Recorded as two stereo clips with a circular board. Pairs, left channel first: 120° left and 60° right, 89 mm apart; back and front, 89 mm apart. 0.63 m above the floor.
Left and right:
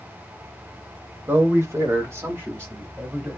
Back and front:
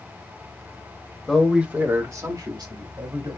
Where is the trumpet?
No trumpet in this recording.